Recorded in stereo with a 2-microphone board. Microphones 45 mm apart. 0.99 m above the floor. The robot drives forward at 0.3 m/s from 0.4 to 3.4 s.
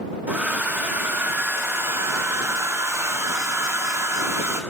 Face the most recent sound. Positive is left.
turn(degrees=-75)  # may be behind; listen again after turning